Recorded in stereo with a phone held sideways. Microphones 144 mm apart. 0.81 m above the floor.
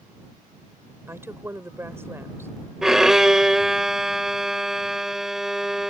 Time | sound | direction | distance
1.1 | a woman speaking | 15° right (ahead or behind) | ?
2.8 | a violin | 5° right (ahead or behind) | ?